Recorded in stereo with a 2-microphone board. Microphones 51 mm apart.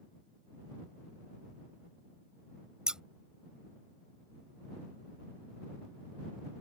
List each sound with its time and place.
2.9 s scissors: 15° right (ahead or behind)